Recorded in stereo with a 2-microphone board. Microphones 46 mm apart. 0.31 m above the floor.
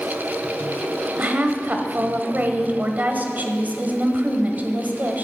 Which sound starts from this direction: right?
A woman speaking, at 1.2 s.